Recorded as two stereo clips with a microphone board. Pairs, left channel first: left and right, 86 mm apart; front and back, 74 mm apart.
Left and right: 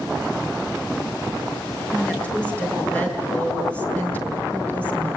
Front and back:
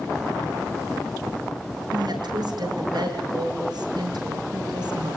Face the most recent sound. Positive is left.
turn(degrees=165)